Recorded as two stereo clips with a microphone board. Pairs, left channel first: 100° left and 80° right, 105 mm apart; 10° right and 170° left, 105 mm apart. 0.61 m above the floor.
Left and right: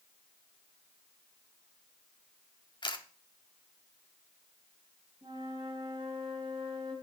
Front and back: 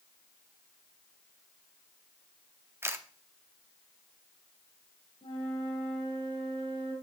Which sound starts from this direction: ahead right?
A flute, at 5.2 s.